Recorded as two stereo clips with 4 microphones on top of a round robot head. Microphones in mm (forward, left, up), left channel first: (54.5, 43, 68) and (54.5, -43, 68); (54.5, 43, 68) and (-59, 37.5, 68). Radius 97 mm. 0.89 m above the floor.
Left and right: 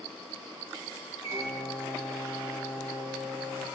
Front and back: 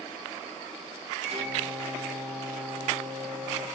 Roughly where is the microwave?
Behind right.